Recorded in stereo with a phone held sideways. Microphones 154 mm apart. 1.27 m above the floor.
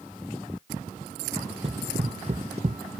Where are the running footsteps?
35° right (ahead or behind); by 2.8 s 45° right (ahead or behind).